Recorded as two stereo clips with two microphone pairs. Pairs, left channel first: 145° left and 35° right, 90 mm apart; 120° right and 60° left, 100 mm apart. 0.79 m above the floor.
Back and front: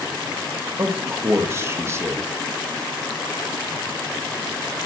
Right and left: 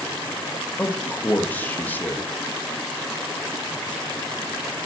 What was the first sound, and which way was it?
A man speaking, 60° right.